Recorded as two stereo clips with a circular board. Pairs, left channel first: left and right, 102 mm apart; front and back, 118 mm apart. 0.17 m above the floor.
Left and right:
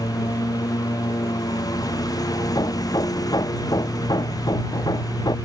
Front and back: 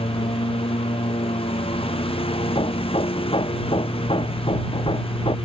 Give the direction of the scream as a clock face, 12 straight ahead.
I don't hear a scream.